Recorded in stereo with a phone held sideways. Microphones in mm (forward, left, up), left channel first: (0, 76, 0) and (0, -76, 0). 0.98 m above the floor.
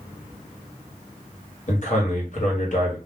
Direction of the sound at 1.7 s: 55° left (ahead or behind).